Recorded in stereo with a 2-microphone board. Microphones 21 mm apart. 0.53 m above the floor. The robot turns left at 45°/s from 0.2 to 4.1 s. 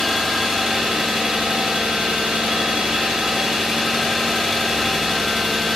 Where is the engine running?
10° right, 0.8 m; by 5.8 s 175° left, 0.8 m.